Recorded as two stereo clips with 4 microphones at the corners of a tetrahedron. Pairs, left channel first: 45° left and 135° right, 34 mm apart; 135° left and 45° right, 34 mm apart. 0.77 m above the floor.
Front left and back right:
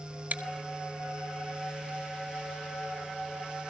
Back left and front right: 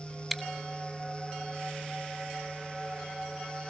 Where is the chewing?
135° right, 1.6 m.